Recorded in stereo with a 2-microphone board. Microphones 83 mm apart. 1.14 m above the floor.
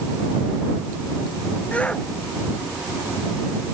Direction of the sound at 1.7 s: 15° left (ahead or behind).